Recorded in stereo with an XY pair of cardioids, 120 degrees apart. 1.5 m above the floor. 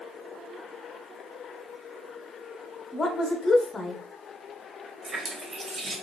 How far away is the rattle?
No rattle in this recording.